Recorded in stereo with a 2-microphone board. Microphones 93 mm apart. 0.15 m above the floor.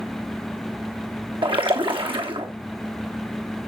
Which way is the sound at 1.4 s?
70° right (ahead or behind).